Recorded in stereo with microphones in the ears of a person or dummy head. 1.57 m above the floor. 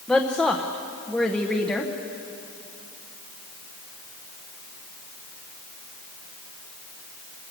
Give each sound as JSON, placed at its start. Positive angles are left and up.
{"t": 0.1, "sound": "a woman speaking", "side_deg": 5, "distance_m": 1.0}